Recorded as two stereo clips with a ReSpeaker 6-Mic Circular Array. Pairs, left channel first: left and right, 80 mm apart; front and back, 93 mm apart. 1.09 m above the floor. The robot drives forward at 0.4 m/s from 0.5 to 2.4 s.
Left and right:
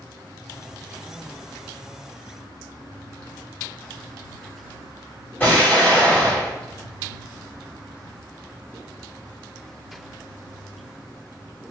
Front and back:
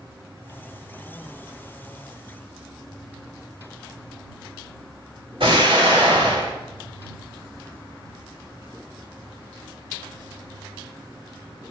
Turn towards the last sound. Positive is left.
turn(degrees=155)